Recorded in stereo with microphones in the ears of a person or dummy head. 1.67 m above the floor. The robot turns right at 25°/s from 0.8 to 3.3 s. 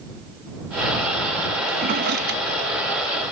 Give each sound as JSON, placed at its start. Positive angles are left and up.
{"t": 1.7, "sound": "a drawer", "side_deg": -40}